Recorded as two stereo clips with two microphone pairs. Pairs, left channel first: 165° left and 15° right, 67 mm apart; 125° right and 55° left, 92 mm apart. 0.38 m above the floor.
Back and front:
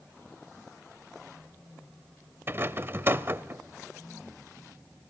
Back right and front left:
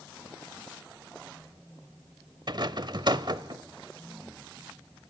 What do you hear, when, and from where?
2.5 s a rattle: 30° left, 0.8 m